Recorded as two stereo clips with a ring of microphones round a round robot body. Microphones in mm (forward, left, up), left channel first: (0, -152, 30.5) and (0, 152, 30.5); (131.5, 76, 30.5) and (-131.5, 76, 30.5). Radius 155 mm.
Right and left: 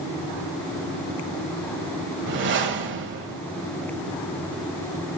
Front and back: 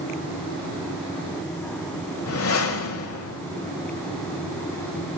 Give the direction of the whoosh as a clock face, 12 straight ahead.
11 o'clock.